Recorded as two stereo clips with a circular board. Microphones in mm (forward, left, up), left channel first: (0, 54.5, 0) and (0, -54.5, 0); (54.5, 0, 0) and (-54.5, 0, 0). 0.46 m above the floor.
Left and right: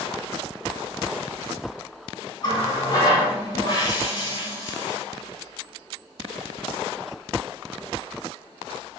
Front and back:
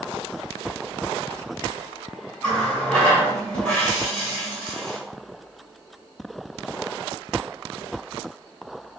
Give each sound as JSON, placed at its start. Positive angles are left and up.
{"t": 2.4, "sound": "a running tap", "azimuth_deg": 80, "distance_m": 0.8}